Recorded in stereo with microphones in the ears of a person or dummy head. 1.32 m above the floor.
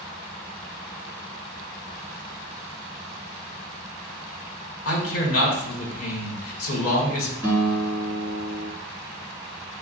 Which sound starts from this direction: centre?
A guitar, at 7.4 s.